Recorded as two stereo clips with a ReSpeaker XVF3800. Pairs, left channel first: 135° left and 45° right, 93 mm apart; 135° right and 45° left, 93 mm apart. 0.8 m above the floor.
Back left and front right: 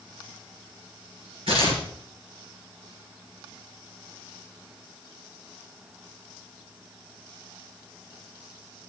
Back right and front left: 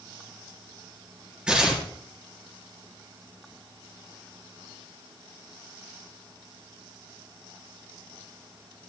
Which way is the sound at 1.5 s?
35° right.